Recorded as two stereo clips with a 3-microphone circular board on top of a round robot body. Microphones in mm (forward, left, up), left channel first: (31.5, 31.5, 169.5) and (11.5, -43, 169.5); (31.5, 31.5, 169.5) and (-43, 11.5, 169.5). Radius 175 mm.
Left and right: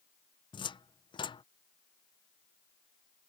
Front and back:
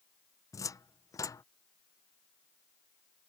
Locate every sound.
0.5 s a cupboard door: 65° left